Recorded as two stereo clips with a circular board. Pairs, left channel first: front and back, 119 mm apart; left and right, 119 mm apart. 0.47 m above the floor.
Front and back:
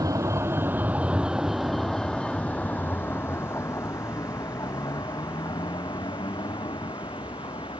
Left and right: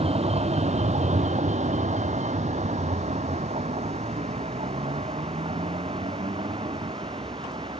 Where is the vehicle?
120° right; by 7.8 s 45° right.